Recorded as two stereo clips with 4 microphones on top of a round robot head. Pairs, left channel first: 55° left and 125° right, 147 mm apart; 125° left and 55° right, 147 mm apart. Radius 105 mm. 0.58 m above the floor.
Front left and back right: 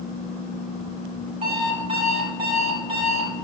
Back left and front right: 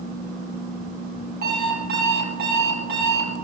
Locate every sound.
1.4 s an alarm clock: 70° right, 6 m